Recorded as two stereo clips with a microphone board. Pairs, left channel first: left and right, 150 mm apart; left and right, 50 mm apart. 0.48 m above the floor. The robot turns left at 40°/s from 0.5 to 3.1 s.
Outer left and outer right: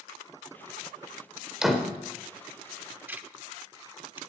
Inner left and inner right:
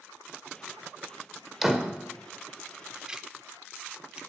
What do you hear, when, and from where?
1.6 s a door slam: 5° right (ahead or behind), 1.2 m; by 1.9 s 5° left (ahead or behind), 1.2 m
3.1 s ticking: 15° right (ahead or behind), 0.5 m